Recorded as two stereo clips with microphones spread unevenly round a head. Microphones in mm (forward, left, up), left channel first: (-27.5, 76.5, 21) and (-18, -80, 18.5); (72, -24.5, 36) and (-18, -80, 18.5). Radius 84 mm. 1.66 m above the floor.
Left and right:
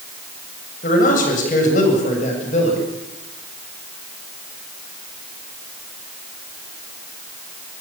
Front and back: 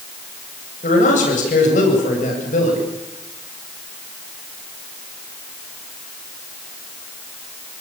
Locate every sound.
0.8 s a man speaking: 50° left, 8.5 m; by 2.8 s 40° left, 8.5 m